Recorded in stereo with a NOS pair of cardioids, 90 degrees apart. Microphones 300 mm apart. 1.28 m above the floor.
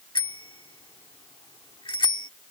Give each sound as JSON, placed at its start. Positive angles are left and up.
{"t": 0.1, "sound": "a bicycle bell", "azimuth_deg": 15}